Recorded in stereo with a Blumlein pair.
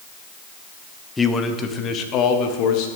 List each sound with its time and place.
1.2 s a man speaking: 10° left, 1.0 m; by 2.9 s 45° left, 1.7 m